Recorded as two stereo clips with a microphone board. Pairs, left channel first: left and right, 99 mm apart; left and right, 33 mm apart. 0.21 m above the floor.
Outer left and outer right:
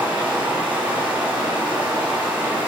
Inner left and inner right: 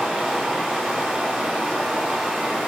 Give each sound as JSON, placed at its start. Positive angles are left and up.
{"t": 0.0, "sound": "running water", "side_deg": -15, "distance_m": 4.5}